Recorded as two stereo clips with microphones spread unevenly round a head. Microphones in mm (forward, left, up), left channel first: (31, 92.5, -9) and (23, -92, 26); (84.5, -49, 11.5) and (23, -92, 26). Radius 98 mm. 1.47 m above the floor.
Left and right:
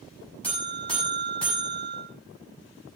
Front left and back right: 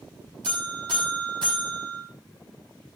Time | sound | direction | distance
0.4 | a buzzer | 175° left | 7 m